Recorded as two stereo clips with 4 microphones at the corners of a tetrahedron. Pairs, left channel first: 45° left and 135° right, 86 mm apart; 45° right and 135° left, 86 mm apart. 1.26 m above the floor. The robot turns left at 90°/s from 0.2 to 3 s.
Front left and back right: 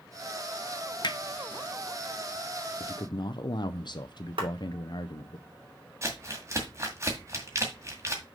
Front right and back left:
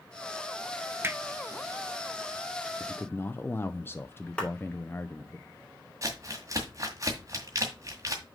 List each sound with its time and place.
1.0 s hammering: 75° left, 0.7 m; by 1.2 s 60° left, 0.7 m
2.8 s a man speaking: 35° left, 0.5 m; by 5.4 s 15° left, 0.5 m
4.4 s a clap: 125° right, 3 m
6.0 s crumpling: 175° left, 1.9 m